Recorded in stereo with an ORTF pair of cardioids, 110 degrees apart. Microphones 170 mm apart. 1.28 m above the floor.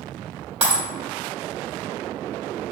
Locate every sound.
0.6 s breaking glass: 45° right, 1.8 m